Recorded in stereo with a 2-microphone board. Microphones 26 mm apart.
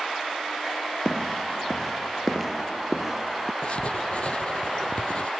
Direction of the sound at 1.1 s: 25° left (ahead or behind).